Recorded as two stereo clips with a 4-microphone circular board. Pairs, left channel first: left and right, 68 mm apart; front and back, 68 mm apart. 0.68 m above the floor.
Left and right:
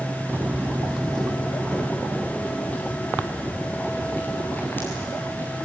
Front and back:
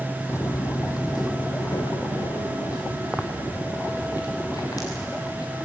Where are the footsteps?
40° right, 1.1 m; by 5.6 s 30° left, 6 m.